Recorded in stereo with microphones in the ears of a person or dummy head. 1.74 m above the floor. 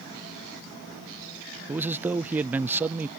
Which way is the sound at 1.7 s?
15° right (ahead or behind).